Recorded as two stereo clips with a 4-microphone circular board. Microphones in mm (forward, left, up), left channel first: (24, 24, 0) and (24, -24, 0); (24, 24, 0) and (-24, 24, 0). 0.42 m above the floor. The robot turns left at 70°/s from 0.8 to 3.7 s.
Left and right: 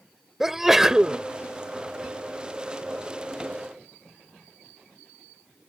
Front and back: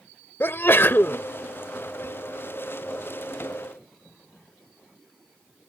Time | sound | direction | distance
0.4 | a sneeze | 10° right | ?